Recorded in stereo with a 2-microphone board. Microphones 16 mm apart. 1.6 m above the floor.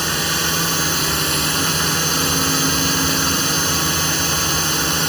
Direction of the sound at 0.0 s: Centre (ahead or behind).